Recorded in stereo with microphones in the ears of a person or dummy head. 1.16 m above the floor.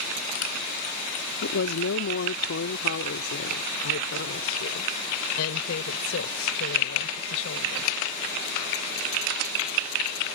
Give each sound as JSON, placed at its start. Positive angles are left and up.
{"t": 1.4, "sound": "a woman speaking", "side_deg": 85}